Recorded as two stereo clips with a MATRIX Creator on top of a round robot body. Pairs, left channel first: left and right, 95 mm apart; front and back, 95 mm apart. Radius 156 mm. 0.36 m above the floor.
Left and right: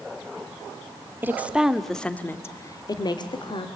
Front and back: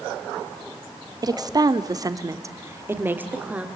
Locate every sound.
1.2 s a woman speaking: 150° right, 1.8 m; by 3.7 s 105° left, 2.5 m